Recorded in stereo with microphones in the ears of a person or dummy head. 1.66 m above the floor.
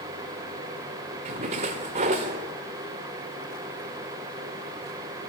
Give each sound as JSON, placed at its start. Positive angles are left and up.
{"t": 1.2, "sound": "a splash", "side_deg": -35, "distance_m": 1.5}